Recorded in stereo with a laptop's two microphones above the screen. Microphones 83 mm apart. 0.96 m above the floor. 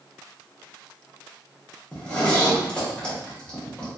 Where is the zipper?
15° left (ahead or behind), 0.9 m.